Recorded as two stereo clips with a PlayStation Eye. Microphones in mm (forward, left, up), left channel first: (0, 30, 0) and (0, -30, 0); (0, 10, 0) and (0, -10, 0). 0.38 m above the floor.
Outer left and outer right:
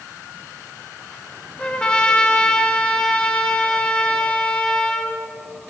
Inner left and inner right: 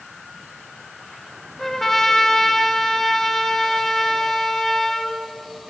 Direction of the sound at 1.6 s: 15° left (ahead or behind).